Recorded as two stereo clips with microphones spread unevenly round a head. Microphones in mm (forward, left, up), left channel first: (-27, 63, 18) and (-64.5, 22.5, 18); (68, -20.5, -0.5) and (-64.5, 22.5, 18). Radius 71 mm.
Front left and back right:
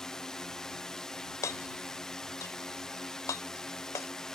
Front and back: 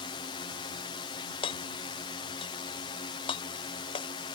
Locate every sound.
0.0 s a drone: 30° right
1.4 s hammering: 35° left